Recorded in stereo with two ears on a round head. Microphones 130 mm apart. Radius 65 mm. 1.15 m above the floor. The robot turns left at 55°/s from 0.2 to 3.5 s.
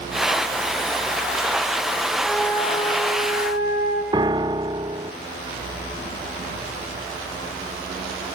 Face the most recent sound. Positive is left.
turn(degrees=-30)  # may be behind; listen again after turning